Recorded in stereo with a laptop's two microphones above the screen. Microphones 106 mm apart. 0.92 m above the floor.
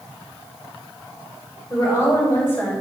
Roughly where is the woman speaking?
Left.